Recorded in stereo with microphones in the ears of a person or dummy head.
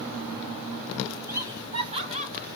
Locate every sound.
1.3 s laughter: 10° right (ahead or behind), 1.1 m; by 2.5 s 40° right (ahead or behind), 1.7 m